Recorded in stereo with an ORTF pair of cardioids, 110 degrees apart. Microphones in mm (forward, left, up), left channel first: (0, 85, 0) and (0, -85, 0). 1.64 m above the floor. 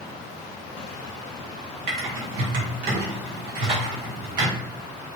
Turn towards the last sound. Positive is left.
turn(degrees=-65)